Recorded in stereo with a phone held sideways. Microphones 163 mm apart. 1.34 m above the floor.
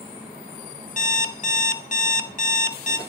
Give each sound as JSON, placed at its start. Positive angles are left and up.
{"t": 1.0, "sound": "an alarm clock", "side_deg": 50, "distance_m": 0.7}